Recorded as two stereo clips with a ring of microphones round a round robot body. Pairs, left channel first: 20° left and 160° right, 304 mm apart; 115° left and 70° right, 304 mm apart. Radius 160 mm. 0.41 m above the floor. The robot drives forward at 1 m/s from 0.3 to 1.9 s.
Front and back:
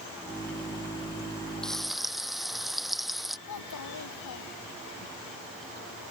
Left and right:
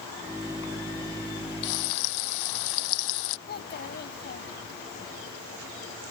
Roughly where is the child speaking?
Ahead left.